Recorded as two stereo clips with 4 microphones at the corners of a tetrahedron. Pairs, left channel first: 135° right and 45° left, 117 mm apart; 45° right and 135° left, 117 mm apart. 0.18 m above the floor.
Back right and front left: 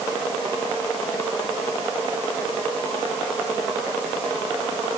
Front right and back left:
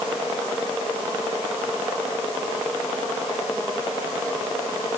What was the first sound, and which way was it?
Only background noise.